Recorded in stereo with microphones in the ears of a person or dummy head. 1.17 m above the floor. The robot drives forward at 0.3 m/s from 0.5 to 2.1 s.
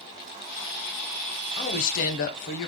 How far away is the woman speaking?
About 0.7 m.